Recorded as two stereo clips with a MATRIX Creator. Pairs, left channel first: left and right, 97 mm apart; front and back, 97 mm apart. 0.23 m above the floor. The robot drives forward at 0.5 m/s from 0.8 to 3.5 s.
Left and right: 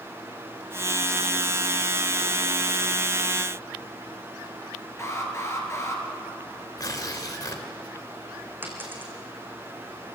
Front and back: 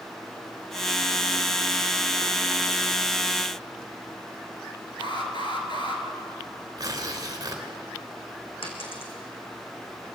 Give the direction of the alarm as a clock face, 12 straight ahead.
11 o'clock.